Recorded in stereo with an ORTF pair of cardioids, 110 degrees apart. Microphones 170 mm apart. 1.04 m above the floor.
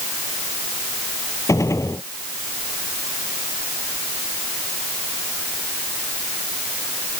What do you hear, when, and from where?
1.5 s a gunshot: 20° left